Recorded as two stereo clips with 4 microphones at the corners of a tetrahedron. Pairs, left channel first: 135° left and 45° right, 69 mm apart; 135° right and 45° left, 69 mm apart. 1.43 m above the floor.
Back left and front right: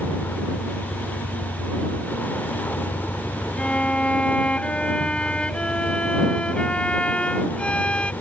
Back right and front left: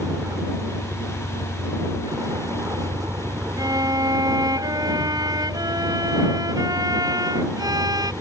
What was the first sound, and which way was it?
A vehicle, 75° left.